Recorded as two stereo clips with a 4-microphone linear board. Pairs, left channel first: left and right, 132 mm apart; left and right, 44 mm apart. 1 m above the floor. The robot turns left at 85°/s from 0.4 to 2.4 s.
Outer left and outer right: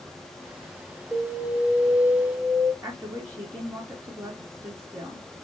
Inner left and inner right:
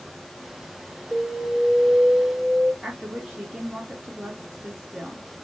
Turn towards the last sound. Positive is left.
turn(degrees=-20)  # may be behind; listen again after turning